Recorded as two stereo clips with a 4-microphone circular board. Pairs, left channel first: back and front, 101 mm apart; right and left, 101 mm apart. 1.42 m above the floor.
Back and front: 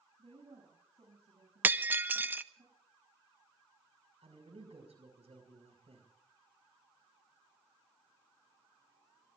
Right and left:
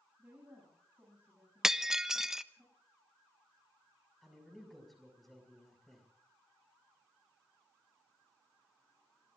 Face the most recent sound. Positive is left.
turn(degrees=0)